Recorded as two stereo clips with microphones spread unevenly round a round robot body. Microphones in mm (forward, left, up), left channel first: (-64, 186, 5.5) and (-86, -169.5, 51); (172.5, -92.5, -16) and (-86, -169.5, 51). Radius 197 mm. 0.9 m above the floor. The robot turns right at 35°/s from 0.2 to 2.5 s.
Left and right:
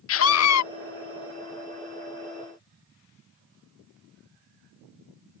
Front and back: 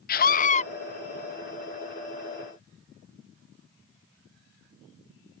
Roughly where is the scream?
Ahead left.